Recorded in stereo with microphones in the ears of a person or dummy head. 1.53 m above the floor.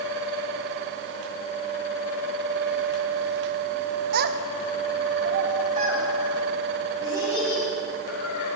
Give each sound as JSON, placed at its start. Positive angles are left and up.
{"t": 4.1, "sound": "a child speaking", "side_deg": -60, "distance_m": 0.8}